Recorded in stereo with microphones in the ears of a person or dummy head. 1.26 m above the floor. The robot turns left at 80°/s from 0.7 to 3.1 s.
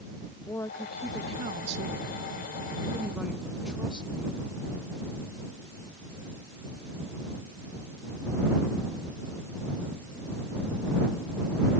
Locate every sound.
0.5 s a woman speaking: 15° left; by 4.4 s 175° right